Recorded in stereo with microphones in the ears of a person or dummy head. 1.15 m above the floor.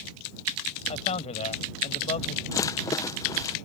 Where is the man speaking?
35° left (ahead or behind).